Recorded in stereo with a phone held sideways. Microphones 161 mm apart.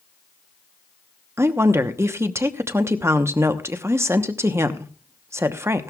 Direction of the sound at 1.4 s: 20° right (ahead or behind).